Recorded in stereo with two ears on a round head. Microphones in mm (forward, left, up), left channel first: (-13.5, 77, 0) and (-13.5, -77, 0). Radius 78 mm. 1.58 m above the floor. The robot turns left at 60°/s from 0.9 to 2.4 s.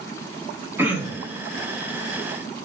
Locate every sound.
0.8 s throat clearing: 10° right, 3 m; by 1.4 s 45° right, 3 m